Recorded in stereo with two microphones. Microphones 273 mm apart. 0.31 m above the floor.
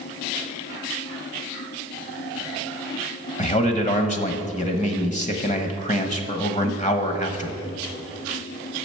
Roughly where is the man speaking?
Left.